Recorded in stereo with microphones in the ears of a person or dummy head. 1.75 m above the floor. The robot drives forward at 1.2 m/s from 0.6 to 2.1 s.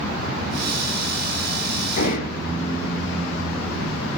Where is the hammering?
50° left (ahead or behind), 10 m.